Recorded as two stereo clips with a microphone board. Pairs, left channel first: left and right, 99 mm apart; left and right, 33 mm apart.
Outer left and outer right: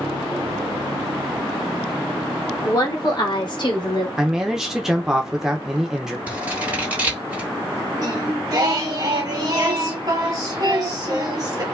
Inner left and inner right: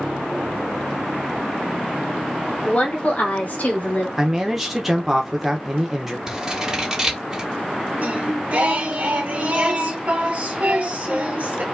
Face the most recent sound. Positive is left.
turn(degrees=-40)  # may be behind; listen again after turning